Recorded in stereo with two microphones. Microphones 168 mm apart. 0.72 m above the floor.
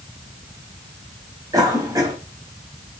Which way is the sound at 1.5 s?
20° right (ahead or behind).